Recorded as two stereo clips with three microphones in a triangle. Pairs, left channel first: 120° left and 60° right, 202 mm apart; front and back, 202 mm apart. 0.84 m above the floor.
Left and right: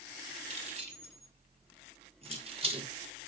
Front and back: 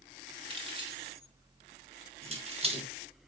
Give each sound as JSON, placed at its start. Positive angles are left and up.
{"t": 0.5, "sound": "keys jangling", "azimuth_deg": -115, "distance_m": 2.5}